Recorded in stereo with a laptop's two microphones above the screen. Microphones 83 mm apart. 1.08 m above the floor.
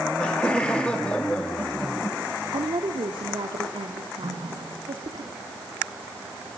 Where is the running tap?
80° right, 8.5 m.